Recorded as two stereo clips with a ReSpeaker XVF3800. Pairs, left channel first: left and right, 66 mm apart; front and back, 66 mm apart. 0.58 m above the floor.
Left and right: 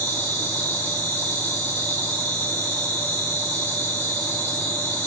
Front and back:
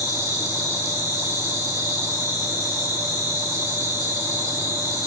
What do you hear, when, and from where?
0.0 s an insect: 20° left, 5.5 m